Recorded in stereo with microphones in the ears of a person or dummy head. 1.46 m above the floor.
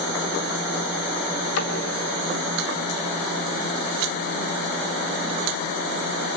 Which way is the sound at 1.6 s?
80° left.